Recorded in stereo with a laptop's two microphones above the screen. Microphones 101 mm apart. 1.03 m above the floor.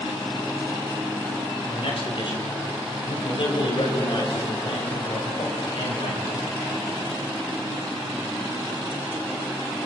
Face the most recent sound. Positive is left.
turn(degrees=60)  # may be behind; listen again after turning